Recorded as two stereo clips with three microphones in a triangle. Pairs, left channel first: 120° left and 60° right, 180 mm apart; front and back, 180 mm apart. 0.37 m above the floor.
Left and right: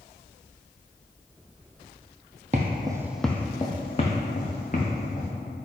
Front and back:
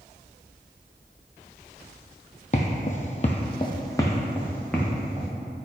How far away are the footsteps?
About 0.5 m.